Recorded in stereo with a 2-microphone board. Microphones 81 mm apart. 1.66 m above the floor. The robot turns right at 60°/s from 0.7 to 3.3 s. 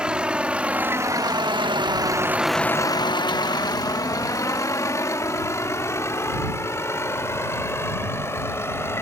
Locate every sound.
0.0 s a vehicle: 10° right (ahead or behind); by 9.0 s 30° left (ahead or behind)